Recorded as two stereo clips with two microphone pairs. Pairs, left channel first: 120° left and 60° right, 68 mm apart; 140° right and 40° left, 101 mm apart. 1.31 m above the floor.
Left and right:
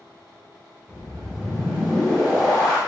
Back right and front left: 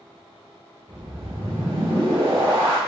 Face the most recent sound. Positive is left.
turn(degrees=25)